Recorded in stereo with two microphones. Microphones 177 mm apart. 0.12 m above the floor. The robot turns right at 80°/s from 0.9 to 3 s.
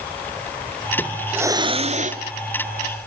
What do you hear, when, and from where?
1.0 s a hiss: 165° left, 0.9 m; by 2.2 s 95° right, 0.9 m